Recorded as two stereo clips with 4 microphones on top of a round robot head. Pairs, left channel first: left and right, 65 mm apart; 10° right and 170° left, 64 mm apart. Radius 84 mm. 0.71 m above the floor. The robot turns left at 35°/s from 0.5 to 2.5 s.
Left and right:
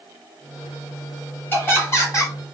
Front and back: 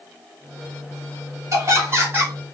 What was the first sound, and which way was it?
Laughter, 140° left.